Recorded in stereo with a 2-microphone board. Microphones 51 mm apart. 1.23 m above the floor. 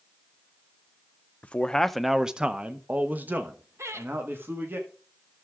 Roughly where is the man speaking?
Left.